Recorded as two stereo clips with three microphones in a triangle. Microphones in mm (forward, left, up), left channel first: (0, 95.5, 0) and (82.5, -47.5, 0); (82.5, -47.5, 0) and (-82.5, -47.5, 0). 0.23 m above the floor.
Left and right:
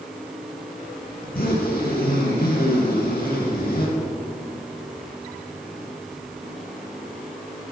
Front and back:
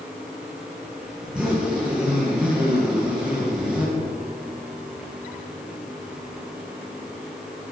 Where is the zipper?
95° left, 5.5 m.